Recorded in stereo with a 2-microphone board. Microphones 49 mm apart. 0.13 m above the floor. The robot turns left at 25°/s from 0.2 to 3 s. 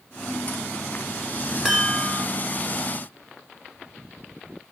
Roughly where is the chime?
Centre.